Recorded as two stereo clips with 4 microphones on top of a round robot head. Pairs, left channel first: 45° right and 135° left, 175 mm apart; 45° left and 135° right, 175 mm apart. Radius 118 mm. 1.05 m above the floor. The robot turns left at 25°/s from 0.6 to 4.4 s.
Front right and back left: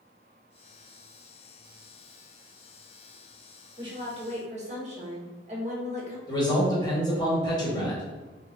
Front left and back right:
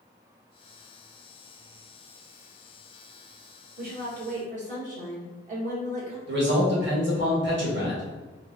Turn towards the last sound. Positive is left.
turn(degrees=-115)